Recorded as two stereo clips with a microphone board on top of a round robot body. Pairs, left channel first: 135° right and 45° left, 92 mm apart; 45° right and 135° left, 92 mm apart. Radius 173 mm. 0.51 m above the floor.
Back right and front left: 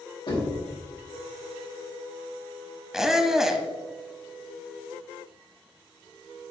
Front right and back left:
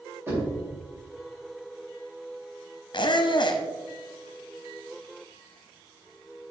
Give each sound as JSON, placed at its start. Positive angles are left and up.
{"t": 0.3, "sound": "knocking", "azimuth_deg": -160, "distance_m": 2.5}
{"t": 2.9, "sound": "a squeak", "azimuth_deg": -40, "distance_m": 0.9}